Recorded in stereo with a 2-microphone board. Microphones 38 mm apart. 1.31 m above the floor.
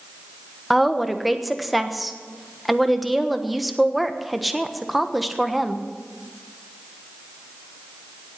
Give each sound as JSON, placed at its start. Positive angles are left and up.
{"t": 0.7, "sound": "a woman speaking", "side_deg": 0, "distance_m": 1.2}